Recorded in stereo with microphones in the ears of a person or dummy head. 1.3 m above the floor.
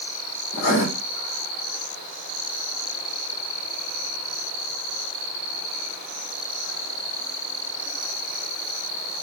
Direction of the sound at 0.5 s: 60° left (ahead or behind).